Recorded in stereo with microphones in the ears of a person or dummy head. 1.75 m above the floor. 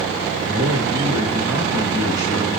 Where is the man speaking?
15° right (ahead or behind), 3.5 m.